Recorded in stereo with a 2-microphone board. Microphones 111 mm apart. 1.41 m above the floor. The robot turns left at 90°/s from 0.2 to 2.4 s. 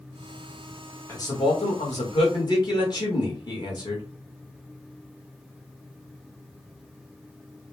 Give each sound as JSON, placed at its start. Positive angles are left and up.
{"t": 1.1, "sound": "a man speaking", "azimuth_deg": 155, "distance_m": 1.6}